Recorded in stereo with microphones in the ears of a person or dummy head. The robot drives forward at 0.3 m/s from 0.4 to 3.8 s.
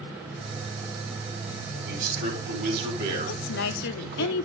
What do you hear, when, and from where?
1.8 s a man speaking: 50° right (ahead or behind), 6 m; by 4.3 s 55° right (ahead or behind), 5.5 m
3.3 s a woman speaking: 70° left (ahead or behind), 1.0 m; by 4.5 s 60° left (ahead or behind), 1.0 m